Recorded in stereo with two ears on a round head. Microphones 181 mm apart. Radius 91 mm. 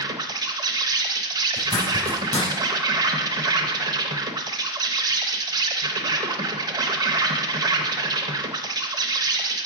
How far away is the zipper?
About 4 m.